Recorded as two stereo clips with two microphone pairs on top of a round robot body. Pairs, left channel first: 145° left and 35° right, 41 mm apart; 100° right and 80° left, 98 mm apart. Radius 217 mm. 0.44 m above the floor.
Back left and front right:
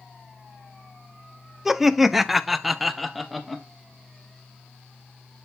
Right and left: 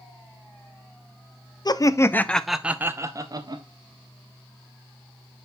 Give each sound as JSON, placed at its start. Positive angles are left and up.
{"t": 1.6, "sound": "laughter", "azimuth_deg": -105, "distance_m": 0.8}